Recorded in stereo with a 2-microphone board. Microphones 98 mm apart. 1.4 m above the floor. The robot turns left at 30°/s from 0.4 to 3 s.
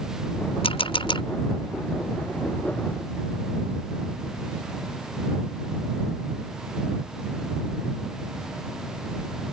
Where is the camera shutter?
75° left (ahead or behind); by 1.2 s 60° left (ahead or behind).